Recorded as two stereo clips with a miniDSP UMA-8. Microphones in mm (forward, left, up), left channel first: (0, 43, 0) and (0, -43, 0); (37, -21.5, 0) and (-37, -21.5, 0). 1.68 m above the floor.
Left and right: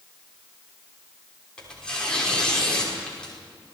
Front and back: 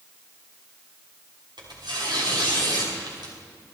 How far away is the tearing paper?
About 6 m.